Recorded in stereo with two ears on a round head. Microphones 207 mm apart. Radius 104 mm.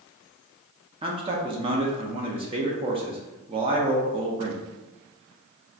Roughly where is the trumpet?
I don't hear a trumpet.